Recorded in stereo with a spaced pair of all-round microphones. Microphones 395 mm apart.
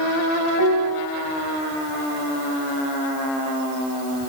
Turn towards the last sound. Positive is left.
turn(degrees=-55)  # may be behind; listen again after turning